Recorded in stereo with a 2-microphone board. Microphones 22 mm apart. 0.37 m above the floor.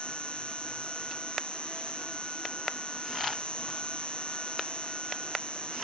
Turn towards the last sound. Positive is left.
turn(degrees=60)  # may be behind; listen again after turning